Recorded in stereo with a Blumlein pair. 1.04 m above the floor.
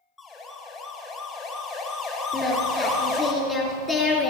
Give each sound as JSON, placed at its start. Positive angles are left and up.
{"t": 0.2, "sound": "a siren", "azimuth_deg": 15, "distance_m": 4.0}
{"t": 2.3, "sound": "singing", "azimuth_deg": 15, "distance_m": 3.0}